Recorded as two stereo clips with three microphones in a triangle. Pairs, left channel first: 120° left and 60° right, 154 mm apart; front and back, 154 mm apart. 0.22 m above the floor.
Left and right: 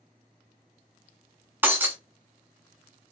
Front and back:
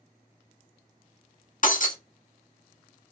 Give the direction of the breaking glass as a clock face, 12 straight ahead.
11 o'clock.